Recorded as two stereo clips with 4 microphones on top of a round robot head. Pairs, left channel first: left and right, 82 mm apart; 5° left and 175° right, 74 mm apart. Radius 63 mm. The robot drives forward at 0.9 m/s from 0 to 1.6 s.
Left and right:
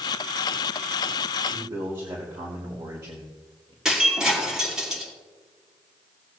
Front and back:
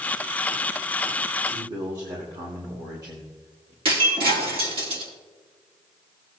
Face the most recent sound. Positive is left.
turn(degrees=-175)